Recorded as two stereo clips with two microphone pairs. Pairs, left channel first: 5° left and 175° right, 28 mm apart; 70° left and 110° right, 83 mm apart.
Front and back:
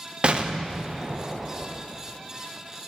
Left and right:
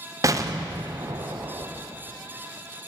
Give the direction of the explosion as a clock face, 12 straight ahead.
4 o'clock.